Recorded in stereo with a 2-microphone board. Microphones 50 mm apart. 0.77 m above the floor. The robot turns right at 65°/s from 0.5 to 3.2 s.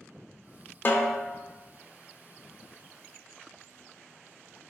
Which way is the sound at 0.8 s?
40° left (ahead or behind).